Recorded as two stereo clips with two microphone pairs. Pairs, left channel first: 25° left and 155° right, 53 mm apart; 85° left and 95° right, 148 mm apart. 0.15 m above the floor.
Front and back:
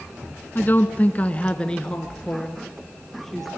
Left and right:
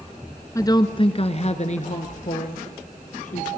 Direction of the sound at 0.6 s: 30° left.